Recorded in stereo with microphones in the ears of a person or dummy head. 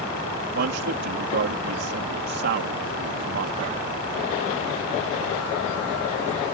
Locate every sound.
0.6 s a man speaking: 55° right (ahead or behind)